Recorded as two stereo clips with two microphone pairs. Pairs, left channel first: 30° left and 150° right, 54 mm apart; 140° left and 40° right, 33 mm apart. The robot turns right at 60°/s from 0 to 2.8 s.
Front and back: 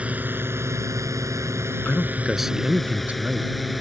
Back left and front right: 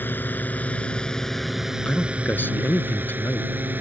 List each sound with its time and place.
0.0 s a drone: 145° left; by 3.8 s 60° right
1.9 s a man speaking: 90° left; by 3.5 s 145° left